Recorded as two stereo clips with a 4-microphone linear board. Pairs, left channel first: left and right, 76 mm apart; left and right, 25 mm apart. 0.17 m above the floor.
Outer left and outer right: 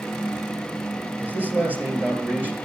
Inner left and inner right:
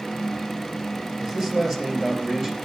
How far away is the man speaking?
About 3 m.